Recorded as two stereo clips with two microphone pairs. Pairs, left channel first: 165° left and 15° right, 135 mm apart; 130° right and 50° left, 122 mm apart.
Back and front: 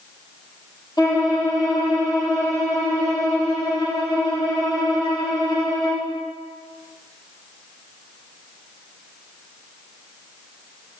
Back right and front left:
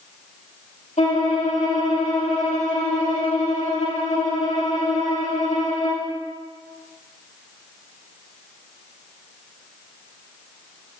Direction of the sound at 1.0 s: 135° right.